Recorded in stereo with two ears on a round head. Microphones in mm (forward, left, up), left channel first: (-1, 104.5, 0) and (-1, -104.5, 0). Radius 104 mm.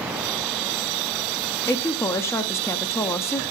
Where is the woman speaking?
10° left (ahead or behind), 0.8 m.